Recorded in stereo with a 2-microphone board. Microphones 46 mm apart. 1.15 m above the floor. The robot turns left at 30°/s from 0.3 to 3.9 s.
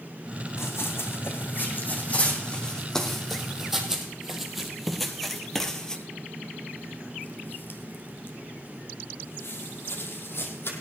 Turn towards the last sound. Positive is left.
turn(degrees=55)  # may be behind; listen again after turning